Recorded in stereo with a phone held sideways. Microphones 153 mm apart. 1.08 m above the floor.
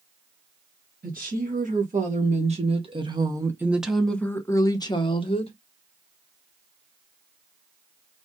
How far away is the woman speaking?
About 1.6 m.